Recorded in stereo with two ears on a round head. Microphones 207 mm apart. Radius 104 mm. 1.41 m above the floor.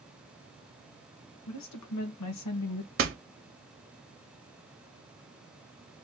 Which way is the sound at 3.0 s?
40° right (ahead or behind).